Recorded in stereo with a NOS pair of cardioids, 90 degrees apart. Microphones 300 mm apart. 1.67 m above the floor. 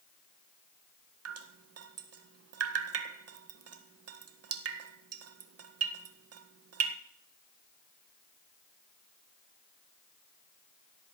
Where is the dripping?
55° right, 1.7 m.